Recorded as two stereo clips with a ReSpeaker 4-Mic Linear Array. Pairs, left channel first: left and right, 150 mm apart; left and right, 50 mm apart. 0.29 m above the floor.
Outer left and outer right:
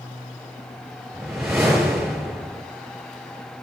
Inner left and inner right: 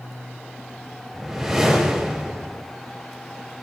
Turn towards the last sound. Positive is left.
turn(degrees=0)  # may be behind; listen again after turning